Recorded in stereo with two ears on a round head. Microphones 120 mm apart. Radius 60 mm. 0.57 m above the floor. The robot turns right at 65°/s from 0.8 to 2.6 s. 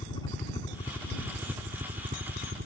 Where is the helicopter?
150° left; by 2.7 s 95° right.